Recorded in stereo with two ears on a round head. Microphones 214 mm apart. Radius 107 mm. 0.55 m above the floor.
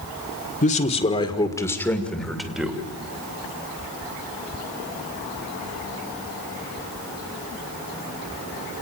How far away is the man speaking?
About 1.9 m.